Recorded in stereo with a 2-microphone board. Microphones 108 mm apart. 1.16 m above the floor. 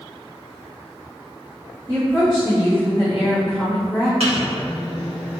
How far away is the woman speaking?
About 1.3 m.